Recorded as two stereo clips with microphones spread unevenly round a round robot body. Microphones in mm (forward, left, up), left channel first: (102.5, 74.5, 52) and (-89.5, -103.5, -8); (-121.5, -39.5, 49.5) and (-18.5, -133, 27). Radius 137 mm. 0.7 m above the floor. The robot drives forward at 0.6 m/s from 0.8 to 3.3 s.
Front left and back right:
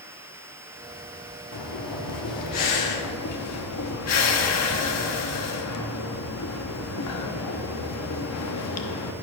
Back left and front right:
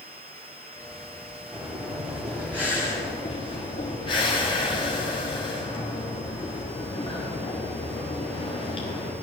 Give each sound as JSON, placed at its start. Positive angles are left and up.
{"t": 1.5, "sound": "breathing", "azimuth_deg": 35, "distance_m": 1.7}